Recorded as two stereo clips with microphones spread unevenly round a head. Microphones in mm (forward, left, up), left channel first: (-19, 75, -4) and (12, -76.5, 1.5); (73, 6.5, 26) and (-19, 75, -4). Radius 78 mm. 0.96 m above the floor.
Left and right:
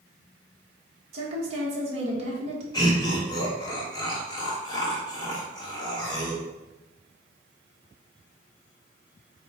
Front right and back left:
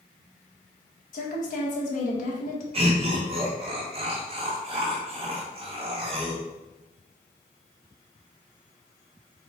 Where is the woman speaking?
30° right, 1.3 m.